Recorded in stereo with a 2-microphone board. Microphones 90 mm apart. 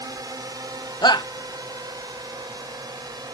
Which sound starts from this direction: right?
A drone, at 0.0 s.